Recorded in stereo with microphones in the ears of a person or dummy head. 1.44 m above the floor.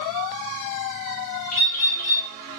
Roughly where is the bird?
Left.